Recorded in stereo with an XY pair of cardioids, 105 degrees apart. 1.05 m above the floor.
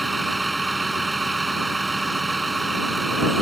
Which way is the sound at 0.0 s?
20° right.